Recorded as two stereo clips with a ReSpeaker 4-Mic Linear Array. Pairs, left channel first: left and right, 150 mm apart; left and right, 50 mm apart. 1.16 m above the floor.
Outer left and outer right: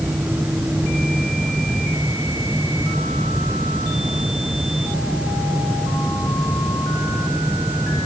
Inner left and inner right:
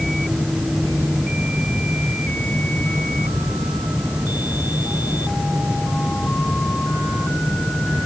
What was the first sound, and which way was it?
Only background noise.